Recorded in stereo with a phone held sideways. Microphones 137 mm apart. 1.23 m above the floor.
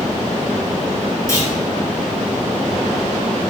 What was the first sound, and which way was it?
A clunk, 20° left (ahead or behind).